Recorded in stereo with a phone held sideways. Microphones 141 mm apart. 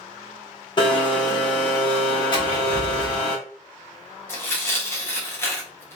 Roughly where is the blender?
Left.